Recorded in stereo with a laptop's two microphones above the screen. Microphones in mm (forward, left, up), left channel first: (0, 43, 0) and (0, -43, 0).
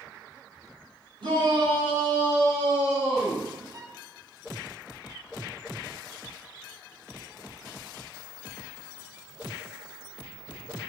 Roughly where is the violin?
Right.